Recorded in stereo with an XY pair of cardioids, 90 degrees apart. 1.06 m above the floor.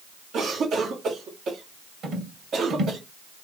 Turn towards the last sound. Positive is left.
turn(degrees=-65)